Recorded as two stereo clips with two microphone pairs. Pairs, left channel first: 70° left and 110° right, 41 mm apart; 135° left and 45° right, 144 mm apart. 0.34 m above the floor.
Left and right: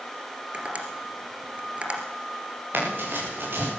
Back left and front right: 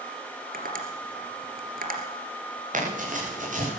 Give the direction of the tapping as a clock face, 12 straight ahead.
2 o'clock.